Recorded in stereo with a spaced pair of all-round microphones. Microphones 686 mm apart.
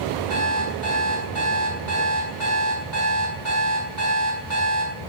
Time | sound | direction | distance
0.3 | an alarm clock | 80° right | 6 m